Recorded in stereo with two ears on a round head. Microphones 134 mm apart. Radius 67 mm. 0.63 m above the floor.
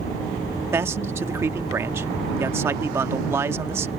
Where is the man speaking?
15° right (ahead or behind).